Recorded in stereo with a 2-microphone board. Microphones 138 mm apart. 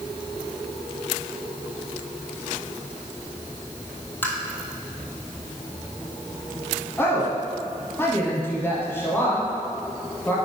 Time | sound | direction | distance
4.2 | tapping | 15° left (ahead or behind) | 1.6 m
7.0 | a woman speaking | 15° left (ahead or behind) | 1.2 m